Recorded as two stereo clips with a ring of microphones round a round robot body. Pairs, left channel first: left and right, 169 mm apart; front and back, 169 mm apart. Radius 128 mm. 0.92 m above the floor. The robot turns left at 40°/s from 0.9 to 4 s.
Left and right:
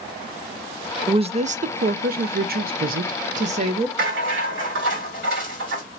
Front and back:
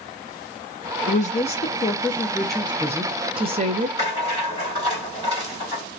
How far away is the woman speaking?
About 0.5 m.